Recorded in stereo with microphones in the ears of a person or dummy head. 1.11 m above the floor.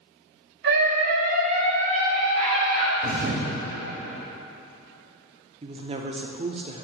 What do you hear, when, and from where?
0.6 s a scream: 65° right (ahead or behind), 2 m; by 2.9 s 35° right (ahead or behind), 4 m
3.0 s a thud: 50° right (ahead or behind), 1.9 m
5.6 s a woman speaking: 30° right (ahead or behind), 0.5 m